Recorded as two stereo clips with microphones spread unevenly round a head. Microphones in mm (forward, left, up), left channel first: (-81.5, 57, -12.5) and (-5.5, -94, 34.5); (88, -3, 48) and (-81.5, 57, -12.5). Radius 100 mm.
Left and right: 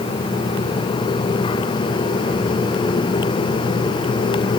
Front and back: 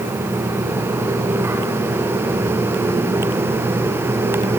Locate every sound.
Only background noise.